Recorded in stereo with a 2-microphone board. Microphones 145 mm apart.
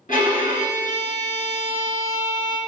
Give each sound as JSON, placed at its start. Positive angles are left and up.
{"t": 0.1, "sound": "a violin", "side_deg": 60, "distance_m": 1.7}